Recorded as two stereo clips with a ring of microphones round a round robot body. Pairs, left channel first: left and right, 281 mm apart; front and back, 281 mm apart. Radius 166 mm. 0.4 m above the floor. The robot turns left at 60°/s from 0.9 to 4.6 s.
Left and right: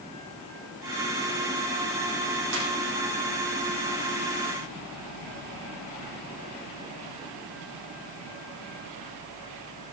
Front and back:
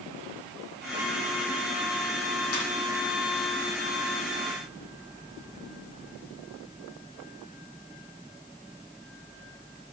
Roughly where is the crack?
I don't hear a crack.